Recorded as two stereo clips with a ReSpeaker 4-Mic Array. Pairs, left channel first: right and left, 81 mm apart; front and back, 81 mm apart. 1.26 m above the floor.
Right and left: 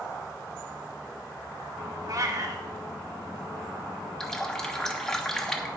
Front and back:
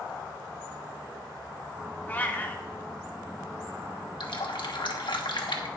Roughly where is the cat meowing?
Ahead left.